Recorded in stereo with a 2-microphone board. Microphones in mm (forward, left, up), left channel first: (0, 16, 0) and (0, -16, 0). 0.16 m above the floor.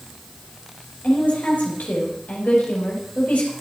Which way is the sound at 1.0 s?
65° left (ahead or behind).